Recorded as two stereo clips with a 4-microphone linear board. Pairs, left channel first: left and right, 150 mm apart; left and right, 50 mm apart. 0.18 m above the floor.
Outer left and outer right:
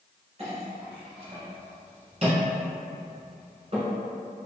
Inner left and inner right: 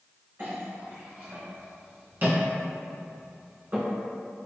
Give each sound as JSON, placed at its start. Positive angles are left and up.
{"t": 0.4, "sound": "a clink", "side_deg": -50, "distance_m": 1.5}